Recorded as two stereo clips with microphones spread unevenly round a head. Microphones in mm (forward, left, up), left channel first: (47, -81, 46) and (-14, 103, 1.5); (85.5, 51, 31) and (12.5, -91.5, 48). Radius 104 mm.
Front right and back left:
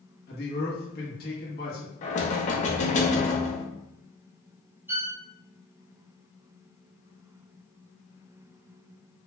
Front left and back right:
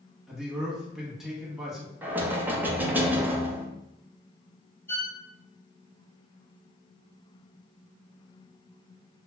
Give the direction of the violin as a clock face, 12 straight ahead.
9 o'clock.